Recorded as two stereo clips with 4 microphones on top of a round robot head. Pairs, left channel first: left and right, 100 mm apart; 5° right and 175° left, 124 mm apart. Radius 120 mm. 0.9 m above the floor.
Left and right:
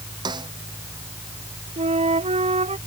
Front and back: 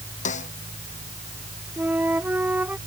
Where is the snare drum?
35° right.